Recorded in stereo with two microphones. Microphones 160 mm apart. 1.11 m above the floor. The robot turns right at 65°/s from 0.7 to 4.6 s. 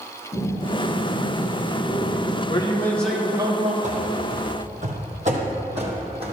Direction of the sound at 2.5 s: 140° left.